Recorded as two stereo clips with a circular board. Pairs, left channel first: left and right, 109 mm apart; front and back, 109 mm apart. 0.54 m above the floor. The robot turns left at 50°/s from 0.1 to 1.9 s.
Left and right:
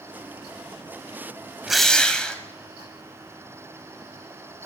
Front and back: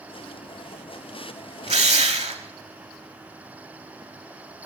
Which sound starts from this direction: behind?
A drill, at 1.7 s.